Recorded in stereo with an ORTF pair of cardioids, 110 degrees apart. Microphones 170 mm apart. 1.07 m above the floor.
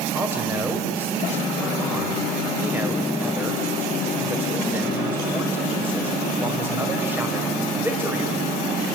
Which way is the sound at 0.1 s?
10° right.